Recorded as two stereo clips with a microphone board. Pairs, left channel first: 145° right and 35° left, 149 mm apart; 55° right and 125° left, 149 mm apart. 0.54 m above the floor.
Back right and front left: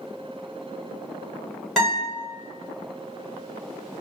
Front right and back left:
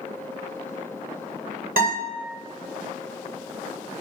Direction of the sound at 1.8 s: 125° left.